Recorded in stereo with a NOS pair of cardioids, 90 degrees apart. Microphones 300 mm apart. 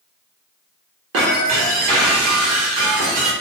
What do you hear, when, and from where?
1.1 s breaking glass: 50° right, 0.9 m